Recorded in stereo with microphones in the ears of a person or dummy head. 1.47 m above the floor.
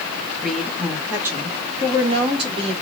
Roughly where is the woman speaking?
Centre.